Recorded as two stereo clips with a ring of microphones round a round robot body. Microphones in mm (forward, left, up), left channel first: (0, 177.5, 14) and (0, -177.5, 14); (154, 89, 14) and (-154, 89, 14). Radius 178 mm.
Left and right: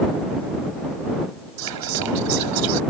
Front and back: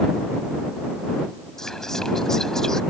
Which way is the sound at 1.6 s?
90° right.